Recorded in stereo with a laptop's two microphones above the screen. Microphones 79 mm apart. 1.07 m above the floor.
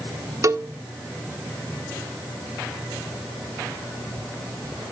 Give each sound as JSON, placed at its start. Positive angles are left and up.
{"t": 0.4, "sound": "a cowbell", "side_deg": -40, "distance_m": 0.6}